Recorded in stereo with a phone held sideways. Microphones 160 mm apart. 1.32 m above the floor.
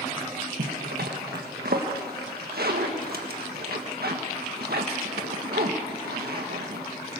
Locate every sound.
0.6 s a zipper: 85° right, 1.5 m